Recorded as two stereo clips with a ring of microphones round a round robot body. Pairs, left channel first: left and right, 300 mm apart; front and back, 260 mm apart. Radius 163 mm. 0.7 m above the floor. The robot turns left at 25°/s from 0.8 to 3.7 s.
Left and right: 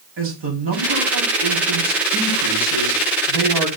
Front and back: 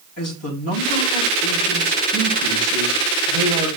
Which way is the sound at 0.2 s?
40° right.